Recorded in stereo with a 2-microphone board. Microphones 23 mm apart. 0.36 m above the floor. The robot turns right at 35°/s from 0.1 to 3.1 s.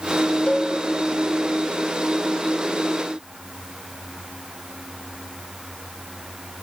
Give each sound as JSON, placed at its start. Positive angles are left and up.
{"t": 0.5, "sound": "a cowbell", "side_deg": 50, "distance_m": 0.6}